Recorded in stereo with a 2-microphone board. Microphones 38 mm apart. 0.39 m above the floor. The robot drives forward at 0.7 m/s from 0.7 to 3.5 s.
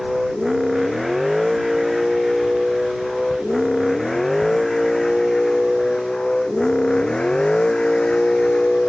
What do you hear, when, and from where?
0.0 s a vehicle: 5° right (ahead or behind); by 8.9 s 30° left (ahead or behind)